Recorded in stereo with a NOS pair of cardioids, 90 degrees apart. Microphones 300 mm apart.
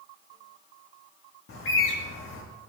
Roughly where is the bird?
Ahead left.